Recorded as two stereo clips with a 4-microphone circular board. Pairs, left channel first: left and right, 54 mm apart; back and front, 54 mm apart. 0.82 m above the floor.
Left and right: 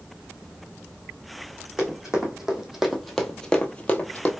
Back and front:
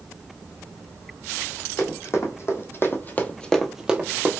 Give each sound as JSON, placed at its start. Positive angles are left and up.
{"t": 1.8, "sound": "running footsteps", "azimuth_deg": -165, "distance_m": 2.0}